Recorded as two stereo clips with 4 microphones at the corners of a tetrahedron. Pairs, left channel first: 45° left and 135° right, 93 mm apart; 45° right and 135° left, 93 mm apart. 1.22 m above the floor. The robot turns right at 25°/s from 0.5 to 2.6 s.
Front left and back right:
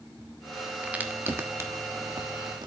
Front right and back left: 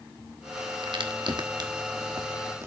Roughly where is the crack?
Behind left.